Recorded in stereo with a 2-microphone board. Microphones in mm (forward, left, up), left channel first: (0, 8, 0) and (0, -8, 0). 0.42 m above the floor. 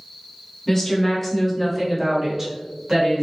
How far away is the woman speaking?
About 1.2 m.